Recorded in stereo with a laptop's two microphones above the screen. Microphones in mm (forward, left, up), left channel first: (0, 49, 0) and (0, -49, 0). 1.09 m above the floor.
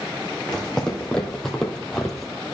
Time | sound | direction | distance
0.5 | footsteps | 10° left (ahead or behind) | 2.5 m